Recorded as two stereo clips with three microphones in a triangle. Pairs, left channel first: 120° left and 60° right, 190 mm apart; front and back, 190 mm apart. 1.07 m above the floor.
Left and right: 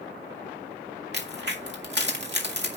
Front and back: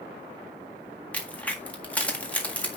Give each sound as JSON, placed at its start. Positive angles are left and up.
{"t": 1.1, "sound": "a crack", "azimuth_deg": -85, "distance_m": 1.8}